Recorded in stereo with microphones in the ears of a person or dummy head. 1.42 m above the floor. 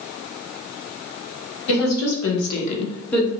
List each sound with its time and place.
1.7 s a woman speaking: 70° left (ahead or behind), 1.4 m; by 3.3 s 10° left (ahead or behind), 1.0 m